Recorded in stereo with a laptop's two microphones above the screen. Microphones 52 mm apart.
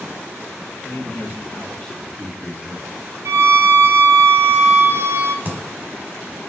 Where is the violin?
60° right (ahead or behind), 0.7 m.